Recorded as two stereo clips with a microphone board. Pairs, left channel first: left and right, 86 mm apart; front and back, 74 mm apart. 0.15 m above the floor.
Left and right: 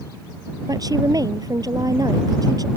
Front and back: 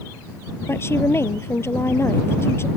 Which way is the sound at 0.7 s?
50° right.